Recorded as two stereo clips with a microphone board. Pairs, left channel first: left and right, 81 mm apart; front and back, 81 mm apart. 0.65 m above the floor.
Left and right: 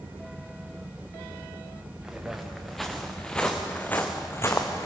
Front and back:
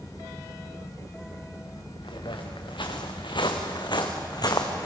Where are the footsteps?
10° right, 3.5 m; by 4.9 s 40° left, 2.5 m.